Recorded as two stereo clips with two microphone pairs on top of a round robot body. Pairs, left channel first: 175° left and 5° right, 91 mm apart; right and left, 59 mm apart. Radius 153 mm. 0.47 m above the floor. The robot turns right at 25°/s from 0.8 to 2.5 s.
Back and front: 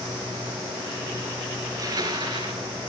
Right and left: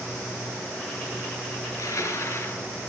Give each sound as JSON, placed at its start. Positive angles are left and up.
{"t": 1.6, "sound": "crushing", "azimuth_deg": -60, "distance_m": 3.0}